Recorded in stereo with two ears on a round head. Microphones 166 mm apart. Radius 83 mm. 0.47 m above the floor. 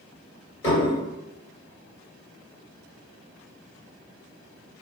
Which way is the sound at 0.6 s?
30° left (ahead or behind).